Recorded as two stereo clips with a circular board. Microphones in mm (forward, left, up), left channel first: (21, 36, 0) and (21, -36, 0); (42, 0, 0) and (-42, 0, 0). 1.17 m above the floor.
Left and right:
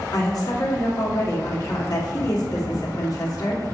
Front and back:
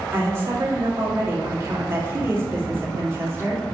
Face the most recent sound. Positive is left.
turn(degrees=120)